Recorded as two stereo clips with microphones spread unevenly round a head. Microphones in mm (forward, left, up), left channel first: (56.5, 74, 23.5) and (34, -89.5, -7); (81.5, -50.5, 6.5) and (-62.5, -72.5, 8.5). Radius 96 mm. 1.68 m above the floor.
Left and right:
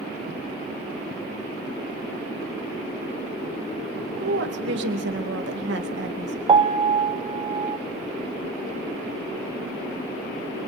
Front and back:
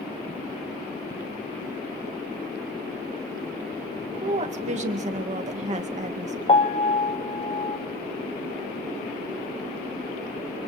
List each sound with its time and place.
4.2 s a woman speaking: 135° right, 2.5 m
6.5 s a piano: 35° right, 1.3 m